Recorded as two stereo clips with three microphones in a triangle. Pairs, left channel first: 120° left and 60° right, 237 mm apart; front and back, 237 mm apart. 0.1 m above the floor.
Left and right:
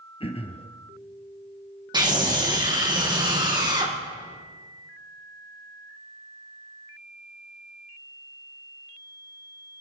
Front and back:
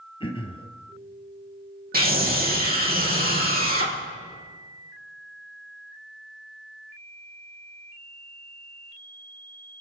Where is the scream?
130° right, 4 m.